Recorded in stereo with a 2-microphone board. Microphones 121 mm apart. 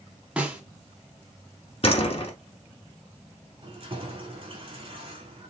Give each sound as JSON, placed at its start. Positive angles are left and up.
{"t": 0.4, "sound": "a snare drum", "side_deg": -10, "distance_m": 1.2}
{"t": 1.8, "sound": "a door slam", "side_deg": 50, "distance_m": 1.1}
{"t": 3.6, "sound": "keys jangling", "side_deg": -45, "distance_m": 1.3}